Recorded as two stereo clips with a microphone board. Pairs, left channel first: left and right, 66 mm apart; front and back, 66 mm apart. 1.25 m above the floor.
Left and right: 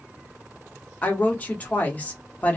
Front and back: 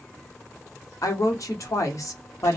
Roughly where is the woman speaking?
Ahead.